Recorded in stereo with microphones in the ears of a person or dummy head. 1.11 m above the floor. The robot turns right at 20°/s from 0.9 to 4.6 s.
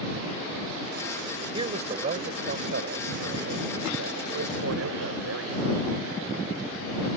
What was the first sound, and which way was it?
A man speaking, 155° right.